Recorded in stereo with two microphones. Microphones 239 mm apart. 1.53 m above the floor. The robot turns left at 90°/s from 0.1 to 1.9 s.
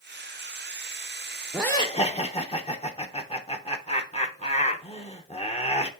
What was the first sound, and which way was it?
Laughter, 175° right.